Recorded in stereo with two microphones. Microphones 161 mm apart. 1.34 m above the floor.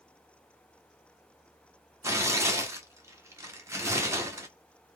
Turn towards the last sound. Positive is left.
turn(degrees=-15)  # may be behind; listen again after turning